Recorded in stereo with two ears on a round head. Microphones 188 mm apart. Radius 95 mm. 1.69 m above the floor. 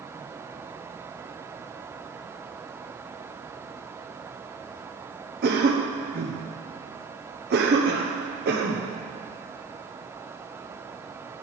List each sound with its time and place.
5.4 s a cough: 50° right (ahead or behind), 1.1 m